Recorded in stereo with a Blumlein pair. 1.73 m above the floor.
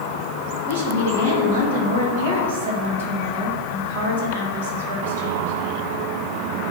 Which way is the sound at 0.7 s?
60° right.